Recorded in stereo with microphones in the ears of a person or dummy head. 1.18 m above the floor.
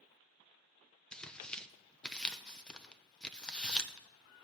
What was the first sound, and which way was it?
Tearing paper, 10° left (ahead or behind).